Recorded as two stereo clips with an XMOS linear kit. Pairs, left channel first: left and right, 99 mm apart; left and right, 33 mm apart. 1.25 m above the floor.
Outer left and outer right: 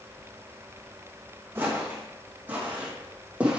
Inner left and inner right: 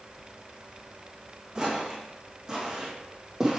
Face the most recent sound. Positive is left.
turn(degrees=-10)  # may be behind; listen again after turning